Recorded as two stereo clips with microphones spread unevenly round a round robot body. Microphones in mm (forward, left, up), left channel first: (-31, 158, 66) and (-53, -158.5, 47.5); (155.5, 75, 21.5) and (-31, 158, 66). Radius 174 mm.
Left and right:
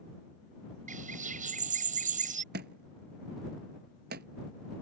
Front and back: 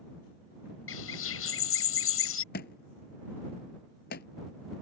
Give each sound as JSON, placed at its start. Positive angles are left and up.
{"t": 0.9, "sound": "a bird", "azimuth_deg": -25}
{"t": 2.5, "sound": "a thud", "azimuth_deg": -50}